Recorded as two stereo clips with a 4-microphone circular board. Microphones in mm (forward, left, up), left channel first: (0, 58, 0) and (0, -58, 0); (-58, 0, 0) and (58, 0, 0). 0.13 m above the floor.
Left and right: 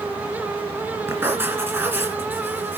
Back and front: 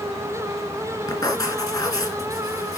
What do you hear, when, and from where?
1.1 s writing: 145° right, 2 m